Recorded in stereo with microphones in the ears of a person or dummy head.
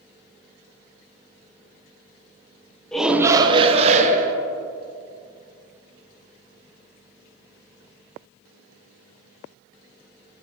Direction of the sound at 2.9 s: 5° left (ahead or behind).